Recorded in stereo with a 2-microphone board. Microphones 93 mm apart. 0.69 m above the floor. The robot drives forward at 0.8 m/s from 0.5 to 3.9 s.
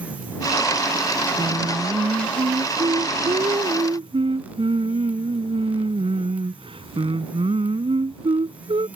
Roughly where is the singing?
Right.